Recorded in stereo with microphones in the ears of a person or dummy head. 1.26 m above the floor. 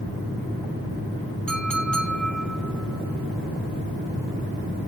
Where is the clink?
5° left (ahead or behind), 1.1 m.